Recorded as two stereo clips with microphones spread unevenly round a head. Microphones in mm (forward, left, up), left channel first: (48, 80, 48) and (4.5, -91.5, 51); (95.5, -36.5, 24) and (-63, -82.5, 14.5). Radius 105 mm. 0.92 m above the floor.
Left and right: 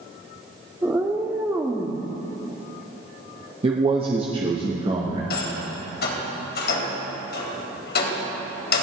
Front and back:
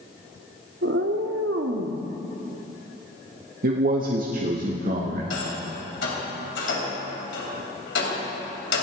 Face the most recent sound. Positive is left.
turn(degrees=50)